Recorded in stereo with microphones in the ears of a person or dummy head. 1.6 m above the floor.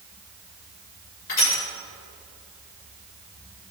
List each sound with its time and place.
1.3 s crushing: 45° left (ahead or behind), 7 m